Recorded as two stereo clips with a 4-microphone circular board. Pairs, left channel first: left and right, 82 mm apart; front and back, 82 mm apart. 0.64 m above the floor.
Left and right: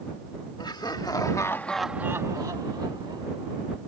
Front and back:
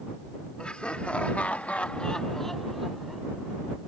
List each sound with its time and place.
0.6 s laughter: 75° left; by 3.8 s 90° right